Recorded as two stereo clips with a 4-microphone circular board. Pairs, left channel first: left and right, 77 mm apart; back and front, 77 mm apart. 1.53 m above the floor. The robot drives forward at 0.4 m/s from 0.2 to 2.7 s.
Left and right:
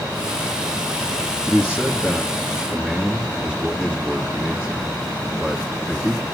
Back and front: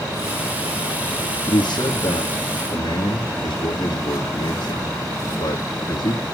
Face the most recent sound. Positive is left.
turn(degrees=180)